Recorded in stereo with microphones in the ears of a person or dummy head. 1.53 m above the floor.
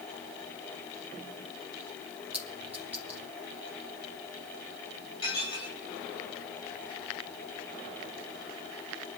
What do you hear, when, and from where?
2.3 s a clink: 10° right (ahead or behind), 2 m
5.2 s dishes clattering: 30° left (ahead or behind), 4 m